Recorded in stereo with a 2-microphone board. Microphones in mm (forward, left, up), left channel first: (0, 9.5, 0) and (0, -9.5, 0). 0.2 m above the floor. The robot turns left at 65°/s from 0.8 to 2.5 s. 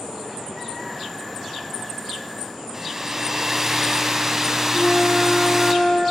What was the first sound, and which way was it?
A hair dryer, 25° right (ahead or behind).